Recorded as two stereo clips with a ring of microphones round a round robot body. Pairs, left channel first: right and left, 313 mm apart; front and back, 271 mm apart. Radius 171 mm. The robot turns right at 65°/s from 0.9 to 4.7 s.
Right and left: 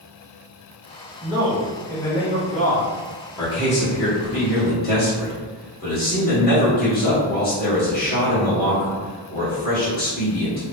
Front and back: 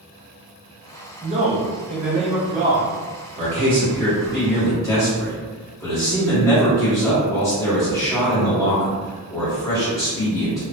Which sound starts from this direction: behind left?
A man speaking, at 1.2 s.